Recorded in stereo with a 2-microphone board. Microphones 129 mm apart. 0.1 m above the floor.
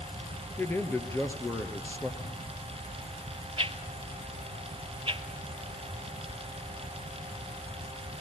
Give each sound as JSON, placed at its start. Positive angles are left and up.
{"t": 0.6, "sound": "a man speaking", "side_deg": 20, "distance_m": 1.5}
{"t": 2.2, "sound": "crumpling", "side_deg": 85, "distance_m": 5.0}
{"t": 3.6, "sound": "a whoosh", "side_deg": -50, "distance_m": 0.7}